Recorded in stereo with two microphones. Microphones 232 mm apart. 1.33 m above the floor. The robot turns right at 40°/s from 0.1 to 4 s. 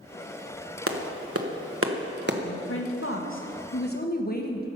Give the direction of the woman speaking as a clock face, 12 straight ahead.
10 o'clock.